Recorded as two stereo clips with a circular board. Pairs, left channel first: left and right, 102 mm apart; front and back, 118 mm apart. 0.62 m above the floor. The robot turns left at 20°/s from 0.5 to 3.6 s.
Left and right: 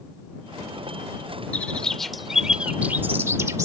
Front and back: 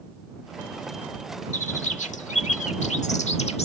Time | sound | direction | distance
1.5 | a bird | 10° left | ?